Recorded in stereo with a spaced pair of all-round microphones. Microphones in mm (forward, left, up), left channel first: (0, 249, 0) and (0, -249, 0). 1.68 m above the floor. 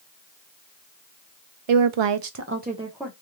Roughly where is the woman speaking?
Right.